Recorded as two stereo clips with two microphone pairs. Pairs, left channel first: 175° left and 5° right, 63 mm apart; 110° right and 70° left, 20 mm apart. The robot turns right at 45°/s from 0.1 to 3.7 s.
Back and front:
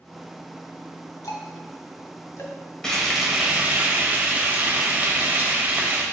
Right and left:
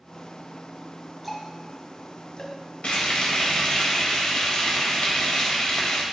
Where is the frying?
110° right, 2 m; by 6.0 s 70° right, 2 m.